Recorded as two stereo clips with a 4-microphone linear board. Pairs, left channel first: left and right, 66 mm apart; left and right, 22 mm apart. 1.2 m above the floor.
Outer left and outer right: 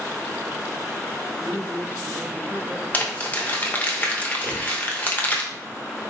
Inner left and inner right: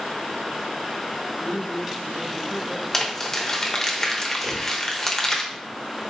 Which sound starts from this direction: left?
Crumpling, at 2.9 s.